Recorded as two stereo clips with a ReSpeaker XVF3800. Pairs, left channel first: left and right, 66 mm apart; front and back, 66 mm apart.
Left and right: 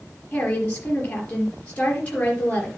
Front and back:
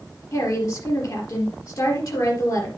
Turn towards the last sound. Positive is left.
turn(degrees=20)